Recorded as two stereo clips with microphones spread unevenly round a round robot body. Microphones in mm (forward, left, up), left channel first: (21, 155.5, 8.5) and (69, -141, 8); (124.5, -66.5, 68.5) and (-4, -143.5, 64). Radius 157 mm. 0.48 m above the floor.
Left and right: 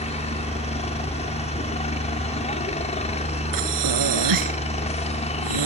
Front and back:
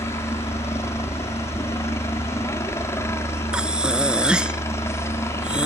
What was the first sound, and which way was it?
A helicopter, 75° left.